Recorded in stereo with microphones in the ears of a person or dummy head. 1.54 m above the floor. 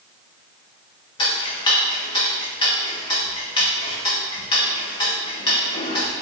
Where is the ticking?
25° left (ahead or behind), 0.7 m.